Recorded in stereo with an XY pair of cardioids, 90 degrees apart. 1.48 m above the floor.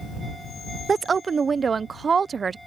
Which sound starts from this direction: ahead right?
A woman speaking, at 0.9 s.